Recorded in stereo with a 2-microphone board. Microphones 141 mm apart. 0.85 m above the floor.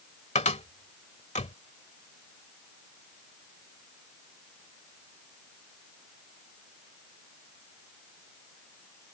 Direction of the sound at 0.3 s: 60° left (ahead or behind).